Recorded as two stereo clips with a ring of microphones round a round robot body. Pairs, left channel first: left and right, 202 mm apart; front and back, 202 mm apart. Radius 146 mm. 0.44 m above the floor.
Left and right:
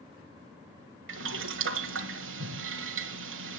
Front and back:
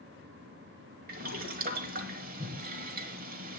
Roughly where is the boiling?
Behind right.